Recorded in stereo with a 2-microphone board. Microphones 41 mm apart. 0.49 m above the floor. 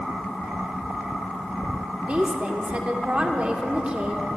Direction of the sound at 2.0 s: 35° right (ahead or behind).